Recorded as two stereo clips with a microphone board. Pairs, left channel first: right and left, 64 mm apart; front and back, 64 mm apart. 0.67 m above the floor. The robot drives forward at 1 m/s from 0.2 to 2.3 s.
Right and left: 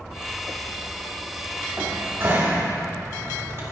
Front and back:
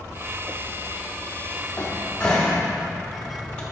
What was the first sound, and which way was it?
A cupboard door, 50° left.